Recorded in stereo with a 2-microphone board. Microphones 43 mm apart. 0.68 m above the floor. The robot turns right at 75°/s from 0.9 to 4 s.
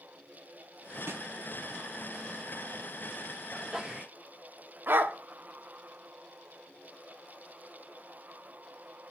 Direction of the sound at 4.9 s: 55° right (ahead or behind).